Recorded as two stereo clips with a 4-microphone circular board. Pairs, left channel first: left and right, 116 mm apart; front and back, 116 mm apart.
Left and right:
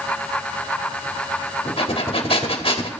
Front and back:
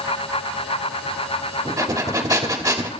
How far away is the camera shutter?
No camera shutter in this recording.